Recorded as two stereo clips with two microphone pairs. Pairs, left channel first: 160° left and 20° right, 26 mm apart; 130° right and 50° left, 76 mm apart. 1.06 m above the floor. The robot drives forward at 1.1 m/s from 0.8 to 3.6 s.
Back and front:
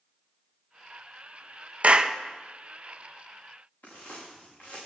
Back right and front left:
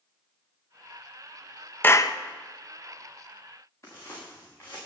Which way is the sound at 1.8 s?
65° right.